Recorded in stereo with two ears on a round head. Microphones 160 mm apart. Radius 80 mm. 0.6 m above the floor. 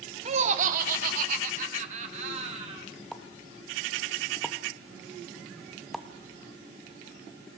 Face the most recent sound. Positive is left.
turn(degrees=0)  # may be behind; listen again after turning